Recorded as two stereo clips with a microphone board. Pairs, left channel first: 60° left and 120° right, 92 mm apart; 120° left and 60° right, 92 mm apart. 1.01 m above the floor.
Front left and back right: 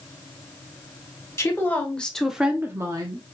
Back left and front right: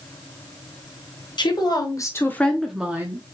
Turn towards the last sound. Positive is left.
turn(degrees=-105)